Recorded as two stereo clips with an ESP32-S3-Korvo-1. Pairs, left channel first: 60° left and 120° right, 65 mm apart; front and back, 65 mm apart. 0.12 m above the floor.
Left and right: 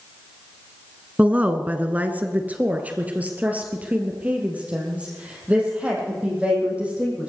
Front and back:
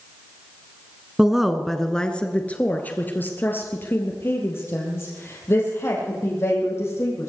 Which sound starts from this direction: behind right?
A woman speaking, at 1.2 s.